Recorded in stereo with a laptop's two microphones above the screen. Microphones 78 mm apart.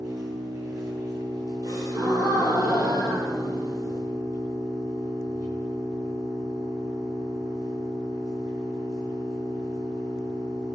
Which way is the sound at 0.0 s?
50° right (ahead or behind).